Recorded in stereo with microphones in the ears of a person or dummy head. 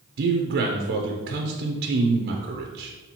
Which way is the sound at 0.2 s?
50° right (ahead or behind).